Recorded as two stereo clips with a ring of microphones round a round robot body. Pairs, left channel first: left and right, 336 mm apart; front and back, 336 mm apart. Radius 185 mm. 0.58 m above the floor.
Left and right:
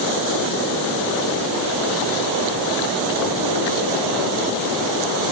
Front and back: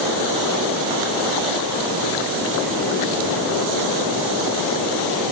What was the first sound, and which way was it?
Only background noise.